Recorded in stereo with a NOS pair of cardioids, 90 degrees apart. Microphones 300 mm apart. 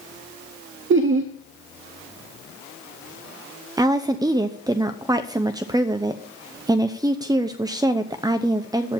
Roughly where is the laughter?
Ahead right.